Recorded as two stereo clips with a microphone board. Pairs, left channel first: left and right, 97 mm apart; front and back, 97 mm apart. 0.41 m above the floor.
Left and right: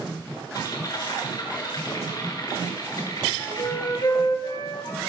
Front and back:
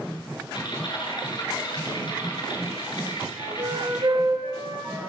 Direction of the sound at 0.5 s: 40° left.